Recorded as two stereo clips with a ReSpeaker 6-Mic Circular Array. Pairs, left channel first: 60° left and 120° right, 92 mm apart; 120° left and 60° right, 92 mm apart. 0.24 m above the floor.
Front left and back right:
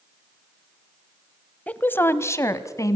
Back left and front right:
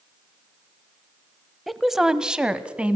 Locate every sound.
1.7 s a woman speaking: 25° left, 0.9 m; by 3.0 s 15° left, 1.5 m